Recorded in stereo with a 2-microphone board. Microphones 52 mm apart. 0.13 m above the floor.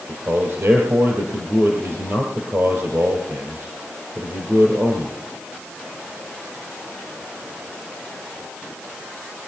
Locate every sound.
0.1 s a man speaking: 55° right (ahead or behind), 3 m